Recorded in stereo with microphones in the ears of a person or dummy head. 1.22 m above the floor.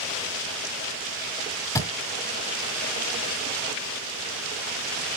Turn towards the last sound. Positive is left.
turn(degrees=15)  # may be behind; listen again after turning